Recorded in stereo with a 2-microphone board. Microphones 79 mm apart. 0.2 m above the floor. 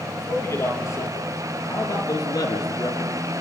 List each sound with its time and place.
0.2 s a man speaking: 40° left (ahead or behind), 6 m; by 3.1 s 55° left (ahead or behind), 3.5 m